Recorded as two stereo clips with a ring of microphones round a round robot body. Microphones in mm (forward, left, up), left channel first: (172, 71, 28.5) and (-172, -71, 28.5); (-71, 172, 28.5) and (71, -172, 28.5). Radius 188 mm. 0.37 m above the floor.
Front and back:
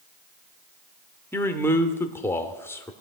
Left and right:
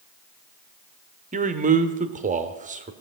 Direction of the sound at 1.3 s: 50° right.